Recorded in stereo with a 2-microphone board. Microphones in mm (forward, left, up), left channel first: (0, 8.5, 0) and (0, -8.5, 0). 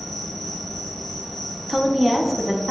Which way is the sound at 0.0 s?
40° left (ahead or behind).